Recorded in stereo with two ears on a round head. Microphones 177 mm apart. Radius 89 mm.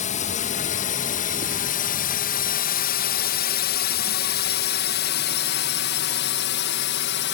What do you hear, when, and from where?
0.0 s a drone: 40° left (ahead or behind); by 7.3 s 60° left (ahead or behind)